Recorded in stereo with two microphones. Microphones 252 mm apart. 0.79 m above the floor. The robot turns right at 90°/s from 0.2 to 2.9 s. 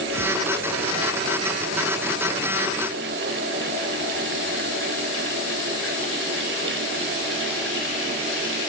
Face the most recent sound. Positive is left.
No sound to turn to.